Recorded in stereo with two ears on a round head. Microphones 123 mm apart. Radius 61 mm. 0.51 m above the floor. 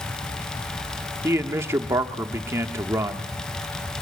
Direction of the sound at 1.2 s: 20° right (ahead or behind).